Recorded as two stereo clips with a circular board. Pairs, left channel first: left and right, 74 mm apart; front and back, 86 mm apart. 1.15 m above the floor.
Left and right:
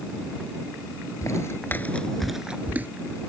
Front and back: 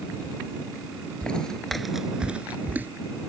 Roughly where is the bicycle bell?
I don't hear a bicycle bell.